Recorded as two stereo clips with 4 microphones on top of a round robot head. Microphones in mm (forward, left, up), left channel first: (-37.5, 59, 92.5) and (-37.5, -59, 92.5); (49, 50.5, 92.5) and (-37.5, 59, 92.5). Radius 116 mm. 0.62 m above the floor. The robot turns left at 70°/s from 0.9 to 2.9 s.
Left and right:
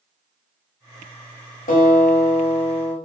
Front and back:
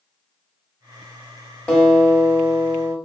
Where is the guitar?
70° left, 0.6 m; by 3.0 s 15° right, 0.6 m.